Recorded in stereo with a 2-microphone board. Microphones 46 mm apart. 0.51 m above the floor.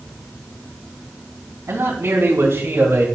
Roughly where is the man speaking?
Right.